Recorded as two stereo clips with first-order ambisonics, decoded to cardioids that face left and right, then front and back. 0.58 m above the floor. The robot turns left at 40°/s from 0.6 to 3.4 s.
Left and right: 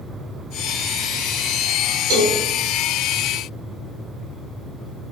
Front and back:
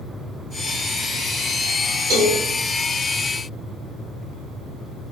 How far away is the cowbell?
About 1.2 m.